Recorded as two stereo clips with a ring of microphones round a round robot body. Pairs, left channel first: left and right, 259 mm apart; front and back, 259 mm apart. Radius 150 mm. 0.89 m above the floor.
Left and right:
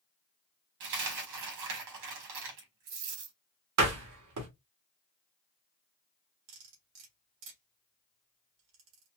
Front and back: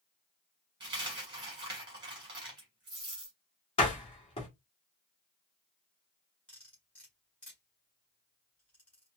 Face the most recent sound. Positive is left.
turn(degrees=-85)